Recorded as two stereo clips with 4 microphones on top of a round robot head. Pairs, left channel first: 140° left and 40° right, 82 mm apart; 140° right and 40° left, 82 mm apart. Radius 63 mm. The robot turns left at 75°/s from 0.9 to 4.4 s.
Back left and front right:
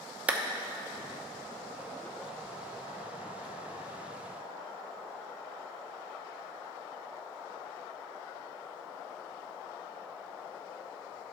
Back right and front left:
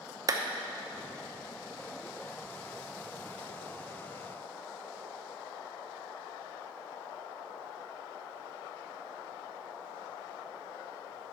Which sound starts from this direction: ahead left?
A clap, at 0.3 s.